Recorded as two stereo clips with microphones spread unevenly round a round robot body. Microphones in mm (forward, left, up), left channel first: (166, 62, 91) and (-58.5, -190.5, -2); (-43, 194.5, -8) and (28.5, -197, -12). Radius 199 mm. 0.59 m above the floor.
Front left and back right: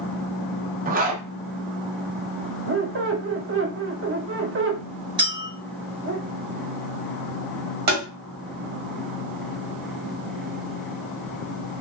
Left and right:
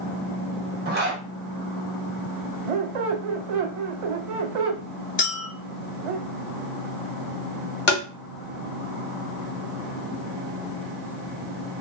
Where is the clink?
165° left, 0.7 m.